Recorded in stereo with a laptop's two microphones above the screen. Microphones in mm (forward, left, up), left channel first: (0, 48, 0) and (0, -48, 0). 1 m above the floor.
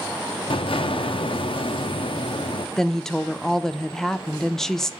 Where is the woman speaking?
5° left (ahead or behind), 0.6 m.